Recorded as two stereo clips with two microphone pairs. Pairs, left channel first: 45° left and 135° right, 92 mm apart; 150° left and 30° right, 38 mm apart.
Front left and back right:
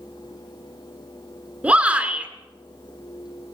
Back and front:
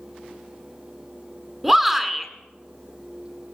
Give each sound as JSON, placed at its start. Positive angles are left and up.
{"t": 1.6, "sound": "a shout", "azimuth_deg": -100, "distance_m": 1.8}